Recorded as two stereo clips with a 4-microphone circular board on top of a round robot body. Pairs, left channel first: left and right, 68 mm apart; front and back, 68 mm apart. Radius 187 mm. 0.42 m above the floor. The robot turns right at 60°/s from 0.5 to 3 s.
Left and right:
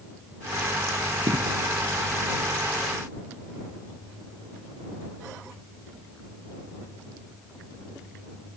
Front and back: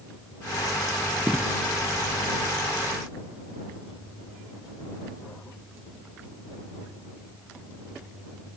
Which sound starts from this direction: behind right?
An explosion, at 1.3 s.